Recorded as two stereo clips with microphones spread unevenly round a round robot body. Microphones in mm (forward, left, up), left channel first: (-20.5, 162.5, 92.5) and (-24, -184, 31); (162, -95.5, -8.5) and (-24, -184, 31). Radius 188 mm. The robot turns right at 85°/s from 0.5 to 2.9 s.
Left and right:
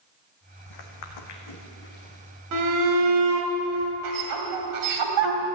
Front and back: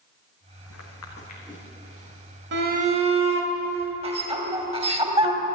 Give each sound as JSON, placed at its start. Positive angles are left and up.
{"t": 0.7, "sound": "footsteps", "azimuth_deg": 55, "distance_m": 1.6}
{"t": 2.5, "sound": "a shout", "azimuth_deg": -120, "distance_m": 3.0}